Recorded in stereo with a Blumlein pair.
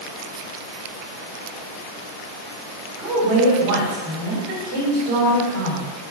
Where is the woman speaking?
45° right, 3 m.